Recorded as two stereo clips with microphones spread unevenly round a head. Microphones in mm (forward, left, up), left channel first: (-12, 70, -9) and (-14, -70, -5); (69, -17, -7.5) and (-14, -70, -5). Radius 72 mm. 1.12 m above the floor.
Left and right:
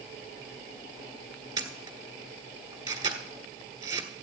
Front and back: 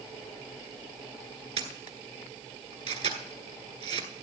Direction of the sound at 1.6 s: 155° right.